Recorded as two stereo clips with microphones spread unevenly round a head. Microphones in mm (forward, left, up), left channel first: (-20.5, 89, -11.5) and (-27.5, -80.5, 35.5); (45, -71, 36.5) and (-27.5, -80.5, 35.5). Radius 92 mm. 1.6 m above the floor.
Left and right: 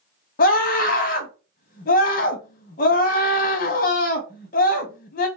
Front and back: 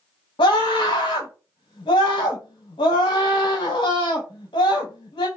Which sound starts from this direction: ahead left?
A scream, at 0.4 s.